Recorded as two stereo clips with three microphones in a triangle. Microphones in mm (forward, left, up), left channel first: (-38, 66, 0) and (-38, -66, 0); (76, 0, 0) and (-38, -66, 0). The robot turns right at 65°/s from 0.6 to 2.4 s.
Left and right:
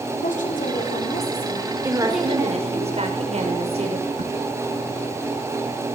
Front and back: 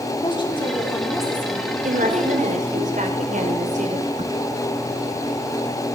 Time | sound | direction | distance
0.2 | a woman speaking | 85° left | 5 m
1.8 | a woman speaking | 165° right | 5.5 m
4.2 | a crack | 115° right | 1.7 m